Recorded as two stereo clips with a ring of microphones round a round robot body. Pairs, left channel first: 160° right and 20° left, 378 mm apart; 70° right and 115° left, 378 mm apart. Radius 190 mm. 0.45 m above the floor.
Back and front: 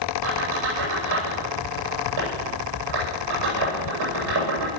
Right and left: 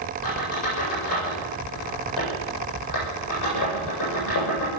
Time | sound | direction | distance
0.2 | a squeak | 25° right | 9 m